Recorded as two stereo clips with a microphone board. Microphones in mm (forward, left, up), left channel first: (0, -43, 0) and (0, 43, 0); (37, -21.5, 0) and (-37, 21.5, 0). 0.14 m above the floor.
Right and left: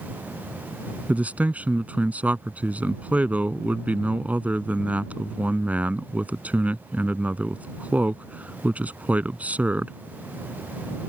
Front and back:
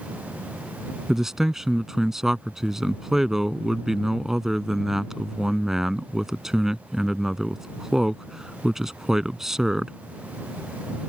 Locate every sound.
1.1 s a man speaking: 75° left